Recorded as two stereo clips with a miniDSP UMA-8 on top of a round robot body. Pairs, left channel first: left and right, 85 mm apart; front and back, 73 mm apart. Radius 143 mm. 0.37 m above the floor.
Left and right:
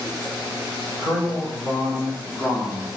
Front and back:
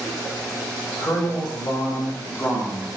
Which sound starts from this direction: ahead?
A man speaking, at 1.0 s.